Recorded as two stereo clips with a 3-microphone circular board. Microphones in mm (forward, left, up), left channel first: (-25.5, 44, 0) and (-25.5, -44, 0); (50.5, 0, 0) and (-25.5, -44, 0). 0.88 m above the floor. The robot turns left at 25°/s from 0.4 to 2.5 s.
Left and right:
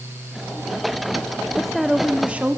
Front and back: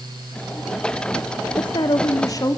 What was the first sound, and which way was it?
A woman speaking, 5° left.